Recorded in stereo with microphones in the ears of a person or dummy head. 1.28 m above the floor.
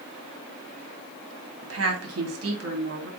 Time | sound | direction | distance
1.6 | a woman speaking | 80° right | 2.5 m